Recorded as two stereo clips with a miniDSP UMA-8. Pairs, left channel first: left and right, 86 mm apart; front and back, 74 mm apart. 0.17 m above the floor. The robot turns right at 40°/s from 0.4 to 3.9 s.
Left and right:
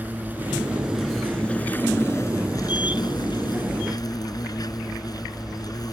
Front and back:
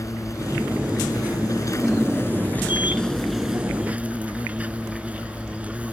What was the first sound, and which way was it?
An insect, 25° right.